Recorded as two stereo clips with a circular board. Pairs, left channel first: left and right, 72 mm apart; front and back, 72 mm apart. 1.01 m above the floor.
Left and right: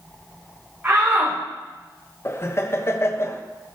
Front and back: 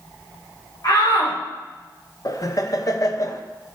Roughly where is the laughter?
Ahead left.